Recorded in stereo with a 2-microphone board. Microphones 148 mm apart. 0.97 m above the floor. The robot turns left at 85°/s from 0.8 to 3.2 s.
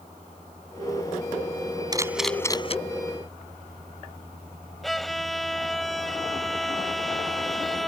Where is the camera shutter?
25° right (ahead or behind); by 2.8 s 45° left (ahead or behind).